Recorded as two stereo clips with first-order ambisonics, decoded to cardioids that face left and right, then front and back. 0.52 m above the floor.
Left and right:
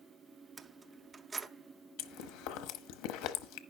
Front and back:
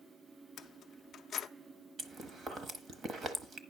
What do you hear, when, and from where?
0.6 s keys jangling: 30° right, 0.5 m
2.0 s chewing: 110° left, 0.9 m